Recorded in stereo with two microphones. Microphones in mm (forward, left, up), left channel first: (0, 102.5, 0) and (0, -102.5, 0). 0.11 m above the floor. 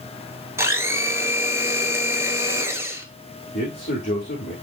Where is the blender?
15° right (ahead or behind), 1.1 m.